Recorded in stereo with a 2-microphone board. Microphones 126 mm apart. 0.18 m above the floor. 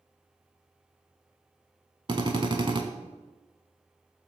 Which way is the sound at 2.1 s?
40° right (ahead or behind).